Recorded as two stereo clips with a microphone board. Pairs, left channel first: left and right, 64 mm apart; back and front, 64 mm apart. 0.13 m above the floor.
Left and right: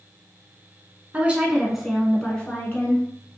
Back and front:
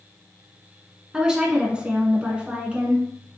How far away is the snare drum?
No snare drum in this recording.